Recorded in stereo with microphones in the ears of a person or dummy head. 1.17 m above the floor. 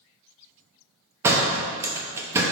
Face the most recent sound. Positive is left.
turn(degrees=-15)  # may be behind; listen again after turning